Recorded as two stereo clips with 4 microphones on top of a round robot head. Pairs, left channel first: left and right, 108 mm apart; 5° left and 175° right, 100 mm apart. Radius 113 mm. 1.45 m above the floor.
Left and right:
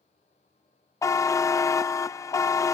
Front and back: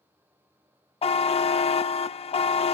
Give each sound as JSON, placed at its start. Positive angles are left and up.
{"t": 1.0, "sound": "a buzzer", "azimuth_deg": 25, "distance_m": 0.5}